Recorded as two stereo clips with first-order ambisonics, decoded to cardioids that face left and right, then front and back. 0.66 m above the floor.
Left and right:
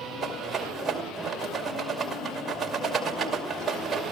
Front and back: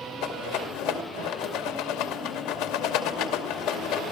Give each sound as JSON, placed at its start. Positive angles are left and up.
{"t": 0.2, "sound": "a rattle", "azimuth_deg": -15, "distance_m": 2.5}